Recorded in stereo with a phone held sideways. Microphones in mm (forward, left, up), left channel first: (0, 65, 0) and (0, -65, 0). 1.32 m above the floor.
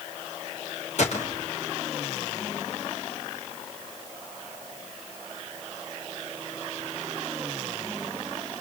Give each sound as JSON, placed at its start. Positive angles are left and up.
{"t": 1.0, "sound": "a gunshot", "side_deg": 60, "distance_m": 3.5}